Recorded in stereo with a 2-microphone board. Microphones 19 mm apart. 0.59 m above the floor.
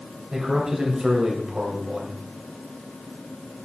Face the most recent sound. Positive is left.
turn(degrees=-60)  # may be behind; listen again after turning